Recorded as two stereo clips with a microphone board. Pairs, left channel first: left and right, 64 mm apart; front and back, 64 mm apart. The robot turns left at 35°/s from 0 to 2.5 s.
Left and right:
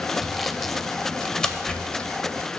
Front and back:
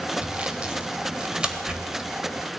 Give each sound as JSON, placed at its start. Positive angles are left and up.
{"t": 0.2, "sound": "sawing", "azimuth_deg": -175, "distance_m": 0.5}